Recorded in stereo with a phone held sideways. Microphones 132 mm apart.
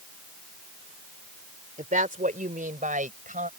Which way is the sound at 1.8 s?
80° right.